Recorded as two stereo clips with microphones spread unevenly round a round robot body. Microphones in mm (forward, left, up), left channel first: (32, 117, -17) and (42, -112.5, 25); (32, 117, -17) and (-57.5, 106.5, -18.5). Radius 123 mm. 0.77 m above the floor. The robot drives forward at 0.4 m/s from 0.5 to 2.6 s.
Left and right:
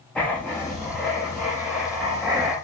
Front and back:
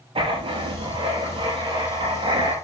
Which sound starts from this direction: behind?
Writing, at 0.1 s.